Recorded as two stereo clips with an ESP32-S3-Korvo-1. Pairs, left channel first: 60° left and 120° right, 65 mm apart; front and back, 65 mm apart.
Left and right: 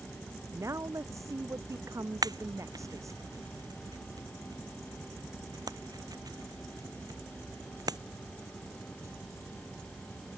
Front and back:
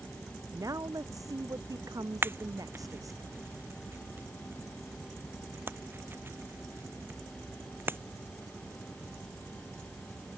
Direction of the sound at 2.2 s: 125° right.